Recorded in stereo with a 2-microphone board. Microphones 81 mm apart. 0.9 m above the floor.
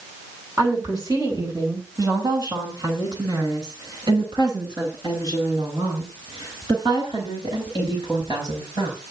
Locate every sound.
0.6 s a woman speaking: 50° right (ahead or behind), 9 m; by 9.0 s 75° right (ahead or behind), 15.5 m